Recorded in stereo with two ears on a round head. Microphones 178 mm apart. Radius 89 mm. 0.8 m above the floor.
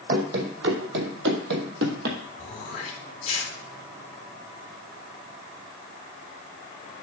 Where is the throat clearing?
30° left (ahead or behind), 2.5 m.